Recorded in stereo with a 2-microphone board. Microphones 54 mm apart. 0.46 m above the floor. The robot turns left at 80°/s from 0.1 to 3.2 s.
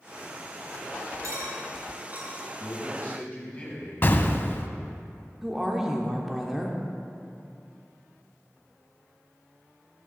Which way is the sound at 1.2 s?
70° right (ahead or behind).